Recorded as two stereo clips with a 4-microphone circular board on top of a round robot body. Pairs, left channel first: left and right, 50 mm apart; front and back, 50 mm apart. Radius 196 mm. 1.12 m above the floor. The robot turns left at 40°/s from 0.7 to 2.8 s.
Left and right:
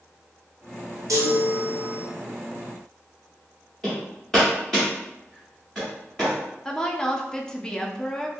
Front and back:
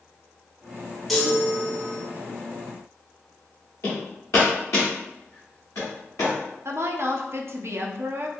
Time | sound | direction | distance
1.1 | a chime | 85° right | 0.7 m
3.8 | hammering | 15° left | 0.8 m
6.7 | a woman speaking | 165° left | 0.7 m